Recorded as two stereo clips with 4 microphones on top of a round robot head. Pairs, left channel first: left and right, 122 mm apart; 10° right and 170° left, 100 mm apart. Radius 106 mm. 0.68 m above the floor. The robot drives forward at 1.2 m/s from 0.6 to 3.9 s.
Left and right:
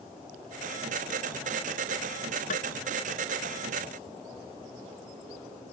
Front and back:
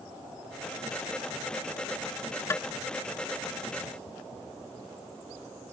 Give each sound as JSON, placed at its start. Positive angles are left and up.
{"t": 2.5, "sound": "tapping", "azimuth_deg": 55}